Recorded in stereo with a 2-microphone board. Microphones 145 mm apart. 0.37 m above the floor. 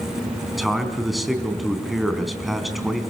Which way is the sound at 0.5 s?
Centre (ahead or behind).